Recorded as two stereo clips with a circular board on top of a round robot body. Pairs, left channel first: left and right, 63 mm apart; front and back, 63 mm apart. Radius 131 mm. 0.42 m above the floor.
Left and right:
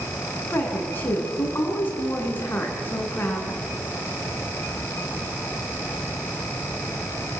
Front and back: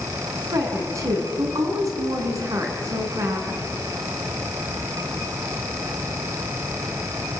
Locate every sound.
0.5 s a woman speaking: 150° left, 5 m